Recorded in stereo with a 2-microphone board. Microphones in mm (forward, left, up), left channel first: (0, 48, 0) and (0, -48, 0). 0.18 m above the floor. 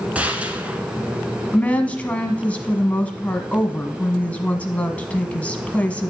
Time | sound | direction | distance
0.1 | a gunshot | 15° right (ahead or behind) | 0.9 m
1.5 | a woman speaking | 15° left (ahead or behind) | 1.0 m